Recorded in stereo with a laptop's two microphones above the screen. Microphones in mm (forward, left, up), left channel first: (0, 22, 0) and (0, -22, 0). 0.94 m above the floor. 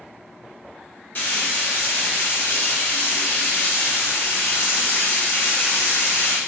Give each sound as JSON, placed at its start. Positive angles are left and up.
{"t": 1.1, "sound": "frying", "side_deg": 45, "distance_m": 0.9}